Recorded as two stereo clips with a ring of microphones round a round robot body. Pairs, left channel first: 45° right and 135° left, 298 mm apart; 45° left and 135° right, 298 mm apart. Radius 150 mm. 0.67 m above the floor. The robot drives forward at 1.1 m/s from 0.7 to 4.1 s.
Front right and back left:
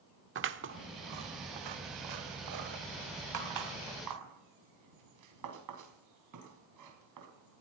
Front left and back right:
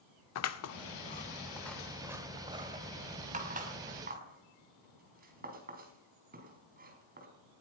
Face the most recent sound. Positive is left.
turn(degrees=165)